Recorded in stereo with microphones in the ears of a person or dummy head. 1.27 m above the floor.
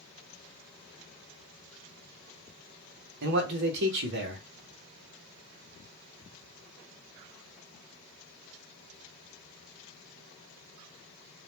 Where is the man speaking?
60° right (ahead or behind), 0.8 m.